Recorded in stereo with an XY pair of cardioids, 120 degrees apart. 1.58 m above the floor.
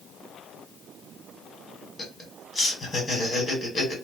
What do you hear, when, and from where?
2.0 s laughter: 25° left, 1.7 m